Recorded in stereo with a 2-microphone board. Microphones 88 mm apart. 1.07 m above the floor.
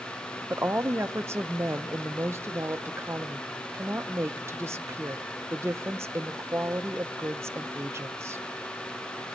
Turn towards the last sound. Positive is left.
turn(degrees=-30)  # may be behind; listen again after turning